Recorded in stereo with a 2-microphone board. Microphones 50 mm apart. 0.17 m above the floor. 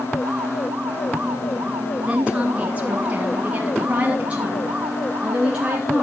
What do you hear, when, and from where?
2.1 s a woman speaking: 20° right (ahead or behind), 2.5 m; by 6.0 s 15° right (ahead or behind), 2.5 m